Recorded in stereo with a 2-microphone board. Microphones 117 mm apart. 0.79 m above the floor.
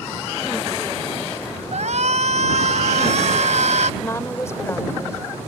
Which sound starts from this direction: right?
A shout, at 1.7 s.